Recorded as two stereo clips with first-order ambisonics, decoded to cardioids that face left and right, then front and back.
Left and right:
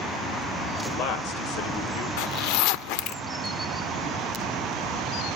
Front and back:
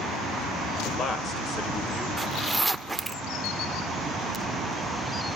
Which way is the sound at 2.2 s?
100° left.